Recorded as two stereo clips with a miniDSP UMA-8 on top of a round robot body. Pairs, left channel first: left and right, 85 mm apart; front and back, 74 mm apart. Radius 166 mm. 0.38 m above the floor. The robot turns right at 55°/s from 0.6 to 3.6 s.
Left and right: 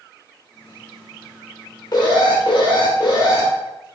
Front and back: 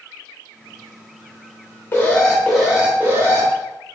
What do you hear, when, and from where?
1.9 s an alarm: 55° left, 1.0 m; by 3.5 s 145° left, 1.0 m